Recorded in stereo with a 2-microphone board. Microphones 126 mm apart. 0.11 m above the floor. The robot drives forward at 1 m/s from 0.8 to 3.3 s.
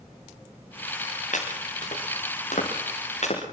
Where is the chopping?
75° left (ahead or behind), 6.5 m; by 3.4 s 60° left (ahead or behind), 7 m.